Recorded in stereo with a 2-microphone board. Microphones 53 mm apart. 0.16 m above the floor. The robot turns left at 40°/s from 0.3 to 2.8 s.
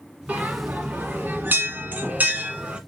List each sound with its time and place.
0.3 s a bell: 30° right (ahead or behind), 1.1 m; by 2.8 s 20° right (ahead or behind), 1.1 m